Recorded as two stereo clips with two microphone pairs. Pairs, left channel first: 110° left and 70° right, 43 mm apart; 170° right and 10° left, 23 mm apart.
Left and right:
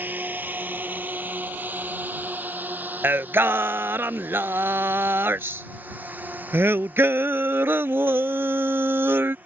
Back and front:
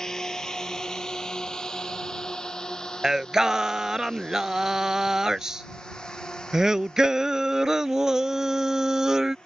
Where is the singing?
60° right.